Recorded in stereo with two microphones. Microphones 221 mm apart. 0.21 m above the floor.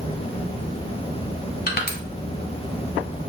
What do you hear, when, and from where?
1.7 s crushing: 45° left (ahead or behind), 1.1 m